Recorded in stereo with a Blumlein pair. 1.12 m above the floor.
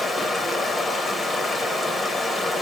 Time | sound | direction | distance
0.0 | running water | 10° left | 1.1 m